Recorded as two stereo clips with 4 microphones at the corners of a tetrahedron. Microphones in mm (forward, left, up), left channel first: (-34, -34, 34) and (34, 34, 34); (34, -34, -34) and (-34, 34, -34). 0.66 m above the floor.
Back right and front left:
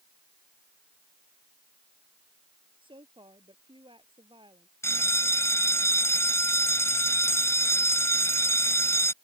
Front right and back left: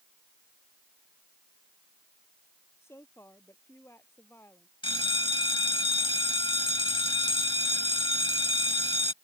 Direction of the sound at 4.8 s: 75° right.